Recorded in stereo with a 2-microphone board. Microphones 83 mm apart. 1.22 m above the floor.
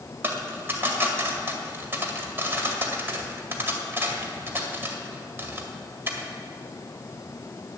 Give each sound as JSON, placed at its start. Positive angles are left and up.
{"t": 0.2, "sound": "a dropped coin", "side_deg": -30, "distance_m": 1.8}